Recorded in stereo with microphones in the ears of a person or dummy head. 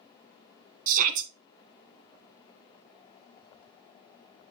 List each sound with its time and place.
0.9 s a shout: 45° right (ahead or behind), 1.7 m